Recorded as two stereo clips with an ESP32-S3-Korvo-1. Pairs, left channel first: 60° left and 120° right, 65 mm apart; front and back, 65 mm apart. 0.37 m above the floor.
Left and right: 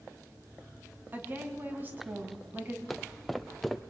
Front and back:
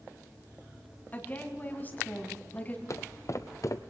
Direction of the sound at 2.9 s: 30° right.